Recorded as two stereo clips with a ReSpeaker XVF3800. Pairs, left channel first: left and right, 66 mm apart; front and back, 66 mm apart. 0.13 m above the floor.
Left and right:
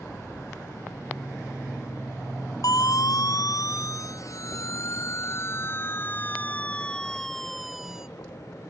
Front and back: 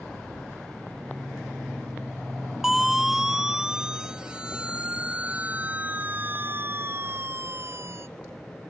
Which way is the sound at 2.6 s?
95° left.